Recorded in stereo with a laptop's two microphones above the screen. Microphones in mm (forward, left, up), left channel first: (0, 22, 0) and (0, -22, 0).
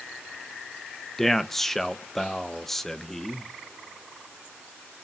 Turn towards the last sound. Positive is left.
turn(degrees=5)  # may be behind; listen again after turning